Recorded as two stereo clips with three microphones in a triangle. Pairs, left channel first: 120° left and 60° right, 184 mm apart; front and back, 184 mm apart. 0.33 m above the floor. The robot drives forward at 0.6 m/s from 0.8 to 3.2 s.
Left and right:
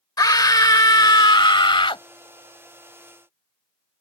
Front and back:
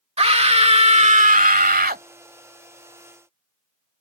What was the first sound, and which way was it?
A scream, 175° left.